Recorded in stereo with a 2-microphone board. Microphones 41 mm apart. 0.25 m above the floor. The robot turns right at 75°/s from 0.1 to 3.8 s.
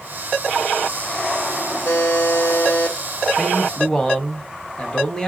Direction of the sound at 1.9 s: 60° left.